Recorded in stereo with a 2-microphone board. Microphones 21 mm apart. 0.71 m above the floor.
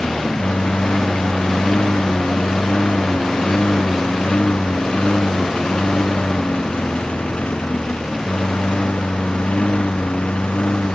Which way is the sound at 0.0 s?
55° left (ahead or behind).